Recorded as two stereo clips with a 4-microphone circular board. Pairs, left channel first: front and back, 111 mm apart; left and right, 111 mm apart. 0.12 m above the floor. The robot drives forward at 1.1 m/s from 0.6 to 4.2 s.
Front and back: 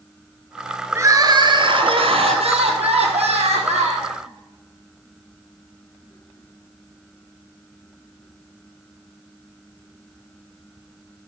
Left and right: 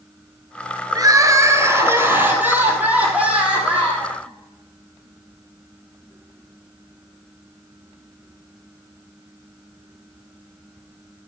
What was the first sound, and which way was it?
Crying, 125° right.